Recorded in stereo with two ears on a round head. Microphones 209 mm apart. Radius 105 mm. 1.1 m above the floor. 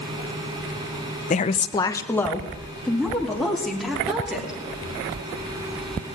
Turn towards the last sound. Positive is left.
turn(degrees=-5)  # may be behind; listen again after turning